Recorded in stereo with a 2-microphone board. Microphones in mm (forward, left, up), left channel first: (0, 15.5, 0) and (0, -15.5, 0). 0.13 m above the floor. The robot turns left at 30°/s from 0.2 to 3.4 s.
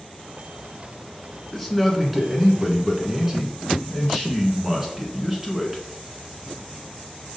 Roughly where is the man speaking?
Centre.